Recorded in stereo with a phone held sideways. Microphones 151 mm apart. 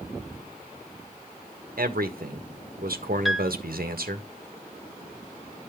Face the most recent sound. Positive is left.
turn(degrees=0)  # may be behind; listen again after turning